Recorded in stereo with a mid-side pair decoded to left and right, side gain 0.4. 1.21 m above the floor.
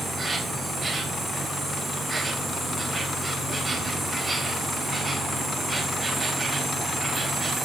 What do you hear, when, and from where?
0.0 s an insect: 25° right, 3.5 m